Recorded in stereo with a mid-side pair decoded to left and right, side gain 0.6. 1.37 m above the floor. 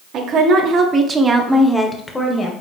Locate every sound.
0.1 s a woman speaking: 60° right, 1.3 m; by 2.5 s 30° left, 1.1 m